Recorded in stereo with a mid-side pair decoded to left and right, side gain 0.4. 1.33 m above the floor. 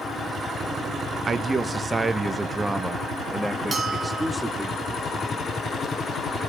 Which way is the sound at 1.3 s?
45° right.